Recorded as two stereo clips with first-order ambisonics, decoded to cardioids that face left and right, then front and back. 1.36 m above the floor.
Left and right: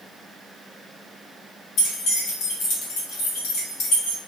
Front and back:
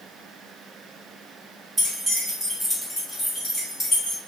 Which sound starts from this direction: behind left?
Keys jangling, at 1.8 s.